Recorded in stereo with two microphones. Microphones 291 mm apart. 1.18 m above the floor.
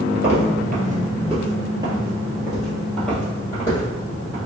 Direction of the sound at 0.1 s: 40° right (ahead or behind).